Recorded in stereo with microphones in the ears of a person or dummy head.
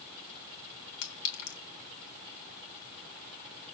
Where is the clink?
75° left (ahead or behind), 3 m.